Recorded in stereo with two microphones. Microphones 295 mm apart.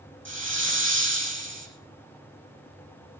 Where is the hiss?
40° right (ahead or behind), 3.5 m.